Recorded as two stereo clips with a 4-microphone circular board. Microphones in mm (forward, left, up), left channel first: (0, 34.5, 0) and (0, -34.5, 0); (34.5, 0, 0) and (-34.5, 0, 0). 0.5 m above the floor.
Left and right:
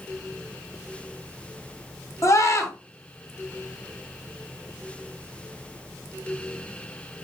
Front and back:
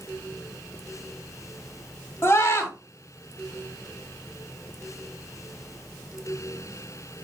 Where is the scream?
50° left, 3 m.